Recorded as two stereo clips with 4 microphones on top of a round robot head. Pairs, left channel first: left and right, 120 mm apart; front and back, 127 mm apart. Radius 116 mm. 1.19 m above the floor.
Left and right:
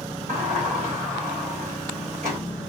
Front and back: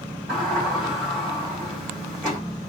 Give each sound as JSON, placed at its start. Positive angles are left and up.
{"t": 0.3, "sound": "a sliding door", "azimuth_deg": -100, "distance_m": 2.5}